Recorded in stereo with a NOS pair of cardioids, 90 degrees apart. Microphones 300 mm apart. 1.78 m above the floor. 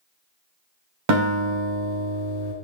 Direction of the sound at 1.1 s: 65° right.